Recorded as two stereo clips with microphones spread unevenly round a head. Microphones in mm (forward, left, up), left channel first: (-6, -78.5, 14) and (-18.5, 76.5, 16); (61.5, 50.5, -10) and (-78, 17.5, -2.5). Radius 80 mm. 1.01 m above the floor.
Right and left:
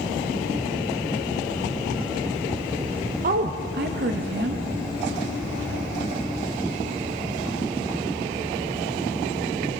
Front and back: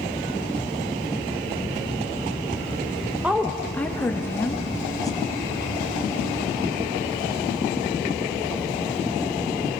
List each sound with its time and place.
3.2 s a woman speaking: 110° left, 1.2 m; by 5.9 s 75° left, 4 m